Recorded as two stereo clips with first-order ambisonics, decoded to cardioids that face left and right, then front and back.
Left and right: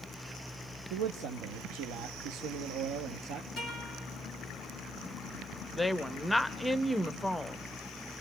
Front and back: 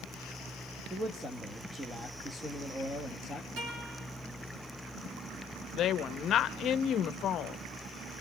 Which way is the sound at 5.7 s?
10° left.